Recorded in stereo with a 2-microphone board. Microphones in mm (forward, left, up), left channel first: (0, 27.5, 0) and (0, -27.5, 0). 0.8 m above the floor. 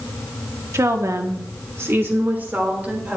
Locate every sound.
0.7 s a woman speaking: 65° right (ahead or behind), 1.3 m; by 3.2 s 30° right (ahead or behind), 3 m